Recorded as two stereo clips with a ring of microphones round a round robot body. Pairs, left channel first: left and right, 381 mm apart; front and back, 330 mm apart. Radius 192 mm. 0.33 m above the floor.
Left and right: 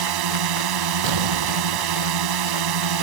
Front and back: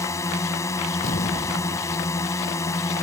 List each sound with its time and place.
0.0 s a drone: 80° right
1.0 s an explosion: 70° right